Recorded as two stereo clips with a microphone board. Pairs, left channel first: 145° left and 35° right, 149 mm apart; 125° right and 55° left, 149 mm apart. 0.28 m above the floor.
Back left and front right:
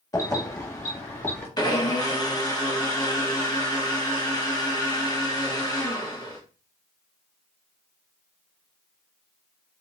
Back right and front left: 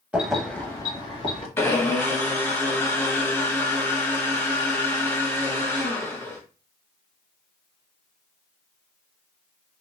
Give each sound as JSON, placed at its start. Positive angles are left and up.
{"t": 0.1, "sound": "keys jangling", "azimuth_deg": 125, "distance_m": 0.9}
{"t": 1.6, "sound": "a blender", "azimuth_deg": 175, "distance_m": 0.8}